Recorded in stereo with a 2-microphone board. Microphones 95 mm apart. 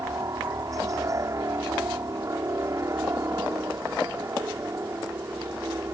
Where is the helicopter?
35° right (ahead or behind); by 6.0 s 30° right (ahead or behind).